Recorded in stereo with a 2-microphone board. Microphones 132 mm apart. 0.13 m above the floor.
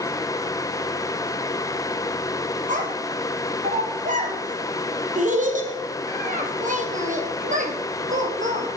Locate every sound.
2.7 s a child speaking: 70° right (ahead or behind), 3 m